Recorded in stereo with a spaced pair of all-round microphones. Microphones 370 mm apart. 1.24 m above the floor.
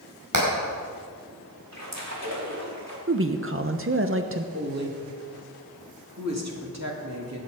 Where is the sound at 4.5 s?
45° right (ahead or behind), 3 m.